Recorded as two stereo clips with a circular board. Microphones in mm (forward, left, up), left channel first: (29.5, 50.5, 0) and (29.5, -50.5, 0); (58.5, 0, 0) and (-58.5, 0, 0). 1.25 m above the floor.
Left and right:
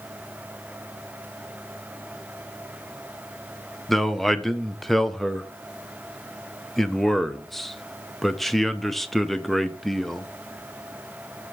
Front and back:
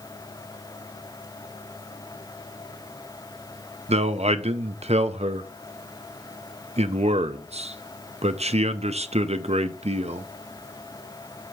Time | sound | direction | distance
3.9 | a man speaking | straight behind | 0.6 m